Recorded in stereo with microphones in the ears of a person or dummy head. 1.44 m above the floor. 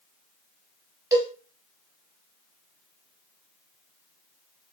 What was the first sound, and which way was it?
A cowbell, 15° right (ahead or behind).